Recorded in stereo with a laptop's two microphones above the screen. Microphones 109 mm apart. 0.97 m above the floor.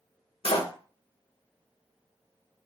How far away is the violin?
I don't hear a violin.